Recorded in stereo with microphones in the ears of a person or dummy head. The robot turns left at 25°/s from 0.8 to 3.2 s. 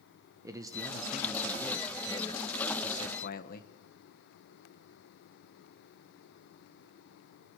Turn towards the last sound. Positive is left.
turn(degrees=130)